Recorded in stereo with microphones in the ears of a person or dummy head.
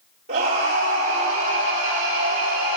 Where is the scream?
45° right (ahead or behind), 4.5 m; by 2.8 s 40° right (ahead or behind), 7 m.